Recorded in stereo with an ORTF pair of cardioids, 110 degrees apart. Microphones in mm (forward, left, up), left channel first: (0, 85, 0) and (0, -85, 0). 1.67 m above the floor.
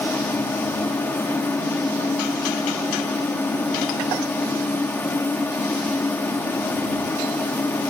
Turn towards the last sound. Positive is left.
turn(degrees=10)